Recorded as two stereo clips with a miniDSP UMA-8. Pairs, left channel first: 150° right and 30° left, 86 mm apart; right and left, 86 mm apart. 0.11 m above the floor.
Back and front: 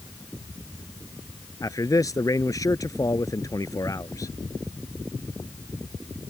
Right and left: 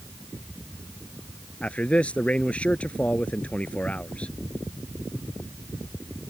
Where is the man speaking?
155° right.